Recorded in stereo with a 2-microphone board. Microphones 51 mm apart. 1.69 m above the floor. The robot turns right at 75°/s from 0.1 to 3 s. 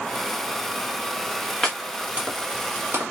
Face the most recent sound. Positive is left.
turn(degrees=-55)  # may be behind; listen again after turning